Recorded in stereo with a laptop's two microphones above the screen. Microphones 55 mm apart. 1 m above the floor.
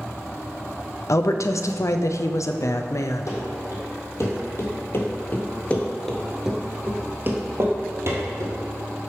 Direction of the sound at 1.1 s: 70° left (ahead or behind).